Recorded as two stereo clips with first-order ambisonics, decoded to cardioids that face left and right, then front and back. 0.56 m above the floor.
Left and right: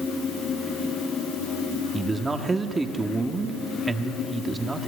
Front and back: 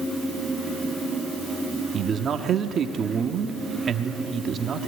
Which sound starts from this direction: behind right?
A man speaking, at 1.9 s.